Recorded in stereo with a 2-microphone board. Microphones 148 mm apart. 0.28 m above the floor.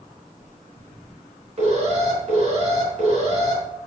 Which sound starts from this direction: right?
An alarm, at 1.6 s.